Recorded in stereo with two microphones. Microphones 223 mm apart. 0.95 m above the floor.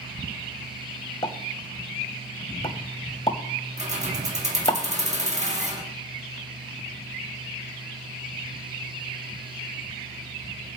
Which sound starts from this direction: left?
A pop, at 1.2 s.